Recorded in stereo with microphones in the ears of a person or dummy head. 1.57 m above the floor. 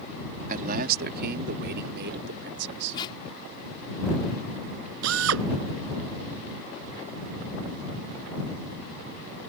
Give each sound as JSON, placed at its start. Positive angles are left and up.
{"t": 0.5, "sound": "a man speaking", "side_deg": -45}
{"t": 2.9, "sound": "tape being pulled", "side_deg": 30}
{"t": 5.0, "sound": "a drill", "side_deg": -75}